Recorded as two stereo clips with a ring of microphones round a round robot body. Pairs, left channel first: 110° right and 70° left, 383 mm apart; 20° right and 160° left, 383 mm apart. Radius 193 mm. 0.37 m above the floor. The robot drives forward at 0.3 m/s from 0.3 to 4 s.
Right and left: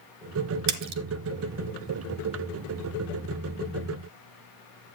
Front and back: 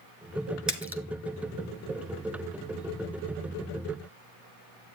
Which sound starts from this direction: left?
A splash, at 0.7 s.